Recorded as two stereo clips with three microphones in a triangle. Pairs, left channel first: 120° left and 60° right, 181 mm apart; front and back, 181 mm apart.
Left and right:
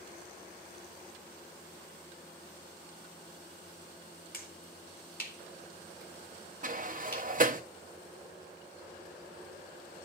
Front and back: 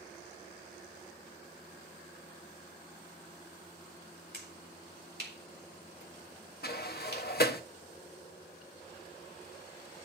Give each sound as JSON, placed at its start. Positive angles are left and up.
{"t": 4.3, "sound": "a finger snap", "azimuth_deg": 155, "distance_m": 3.0}
{"t": 6.6, "sound": "a sliding door", "azimuth_deg": -25, "distance_m": 0.8}